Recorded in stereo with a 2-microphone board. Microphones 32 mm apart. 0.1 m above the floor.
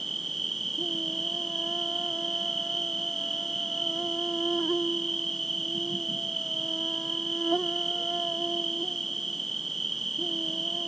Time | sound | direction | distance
0.0 | an insect | 10° left (ahead or behind) | ?